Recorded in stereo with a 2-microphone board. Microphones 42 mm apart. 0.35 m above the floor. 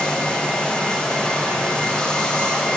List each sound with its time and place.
0.0 s running water: 20° left (ahead or behind), 3.5 m